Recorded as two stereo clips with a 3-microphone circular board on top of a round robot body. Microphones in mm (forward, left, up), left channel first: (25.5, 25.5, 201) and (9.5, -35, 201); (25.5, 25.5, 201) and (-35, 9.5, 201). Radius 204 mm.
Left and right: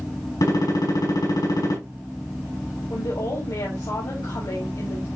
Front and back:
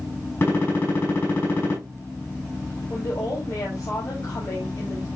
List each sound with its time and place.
0.4 s a gunshot: 65° left, 6 m
2.9 s a woman speaking: 55° left, 4.5 m